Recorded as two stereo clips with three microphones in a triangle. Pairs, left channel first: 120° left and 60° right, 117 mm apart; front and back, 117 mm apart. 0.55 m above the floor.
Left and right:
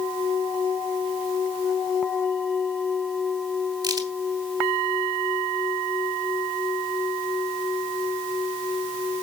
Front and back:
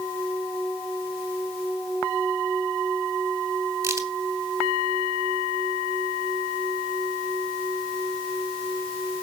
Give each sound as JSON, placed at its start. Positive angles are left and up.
{"t": 3.8, "sound": "a crack", "azimuth_deg": -115, "distance_m": 2.5}